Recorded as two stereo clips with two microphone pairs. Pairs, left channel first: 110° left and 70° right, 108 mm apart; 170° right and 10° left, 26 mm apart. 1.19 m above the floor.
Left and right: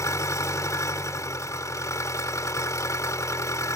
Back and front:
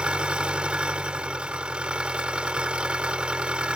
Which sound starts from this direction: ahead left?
An engine running, at 0.0 s.